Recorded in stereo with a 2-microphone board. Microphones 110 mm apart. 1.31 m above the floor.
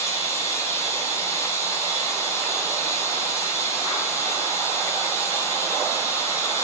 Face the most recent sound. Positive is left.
turn(degrees=25)  # may be behind; listen again after turning